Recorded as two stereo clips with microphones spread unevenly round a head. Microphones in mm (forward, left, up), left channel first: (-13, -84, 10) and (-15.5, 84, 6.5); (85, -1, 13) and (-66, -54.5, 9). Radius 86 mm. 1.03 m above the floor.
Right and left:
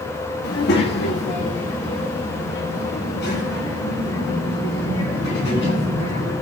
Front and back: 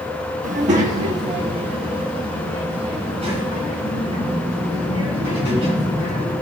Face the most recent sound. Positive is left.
turn(degrees=-105)